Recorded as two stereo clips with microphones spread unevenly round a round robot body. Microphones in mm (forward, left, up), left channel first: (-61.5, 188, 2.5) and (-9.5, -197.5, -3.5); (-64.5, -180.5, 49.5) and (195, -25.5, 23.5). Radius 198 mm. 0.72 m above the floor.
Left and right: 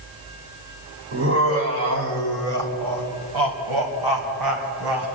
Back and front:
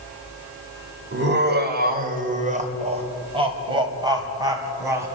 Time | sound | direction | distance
1.1 | laughter | 20° right | 3 m